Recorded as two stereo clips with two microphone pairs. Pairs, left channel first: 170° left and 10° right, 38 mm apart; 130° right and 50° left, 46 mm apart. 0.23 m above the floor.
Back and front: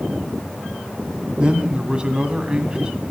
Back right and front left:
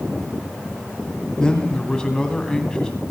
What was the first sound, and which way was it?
A man speaking, 60° right.